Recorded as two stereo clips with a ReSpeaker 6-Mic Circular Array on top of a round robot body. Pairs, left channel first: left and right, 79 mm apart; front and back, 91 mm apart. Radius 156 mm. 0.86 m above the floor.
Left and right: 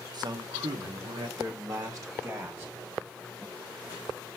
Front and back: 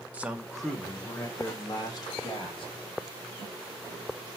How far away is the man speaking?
About 0.9 m.